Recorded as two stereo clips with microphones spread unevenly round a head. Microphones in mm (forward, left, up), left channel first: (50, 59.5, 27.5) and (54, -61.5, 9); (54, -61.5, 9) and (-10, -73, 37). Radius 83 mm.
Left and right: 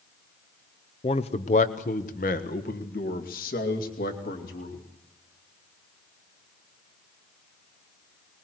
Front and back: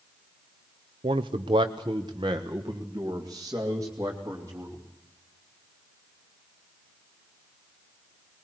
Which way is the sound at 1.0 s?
150° left.